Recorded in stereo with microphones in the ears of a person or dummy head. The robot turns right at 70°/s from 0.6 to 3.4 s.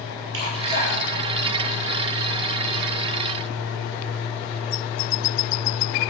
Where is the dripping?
75° right (ahead or behind), 7 m; by 2.1 s 25° left (ahead or behind), 7 m.